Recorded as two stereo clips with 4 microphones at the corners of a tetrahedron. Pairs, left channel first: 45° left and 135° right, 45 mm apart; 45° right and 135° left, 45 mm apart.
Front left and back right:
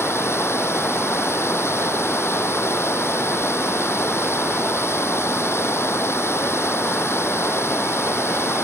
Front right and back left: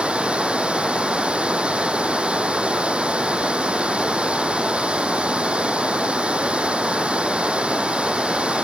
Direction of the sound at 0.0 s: 70° left.